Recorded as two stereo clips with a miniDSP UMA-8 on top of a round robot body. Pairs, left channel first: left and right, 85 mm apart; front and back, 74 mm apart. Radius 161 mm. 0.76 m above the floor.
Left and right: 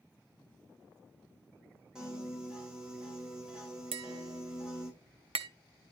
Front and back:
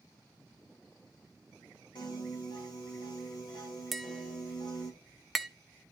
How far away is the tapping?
About 0.8 m.